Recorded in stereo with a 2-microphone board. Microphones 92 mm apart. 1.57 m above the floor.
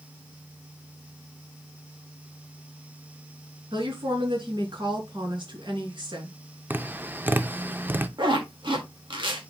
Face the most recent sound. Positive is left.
turn(degrees=-60)  # may be behind; listen again after turning